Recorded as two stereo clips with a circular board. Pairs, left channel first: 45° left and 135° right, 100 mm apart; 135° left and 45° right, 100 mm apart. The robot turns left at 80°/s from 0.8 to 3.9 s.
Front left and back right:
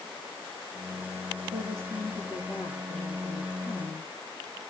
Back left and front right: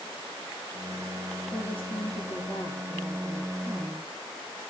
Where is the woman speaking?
175° right, 7.5 m; by 4.1 s 10° right, 7.5 m.